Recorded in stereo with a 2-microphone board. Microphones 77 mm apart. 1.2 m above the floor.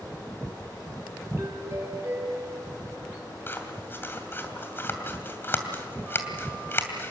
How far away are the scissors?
About 2.5 m.